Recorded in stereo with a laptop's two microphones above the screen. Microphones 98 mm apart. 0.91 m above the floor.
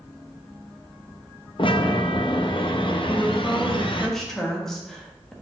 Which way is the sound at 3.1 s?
5° left (ahead or behind).